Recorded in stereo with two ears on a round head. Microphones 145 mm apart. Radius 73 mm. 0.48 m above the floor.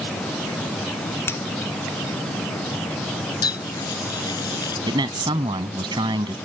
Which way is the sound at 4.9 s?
30° right (ahead or behind).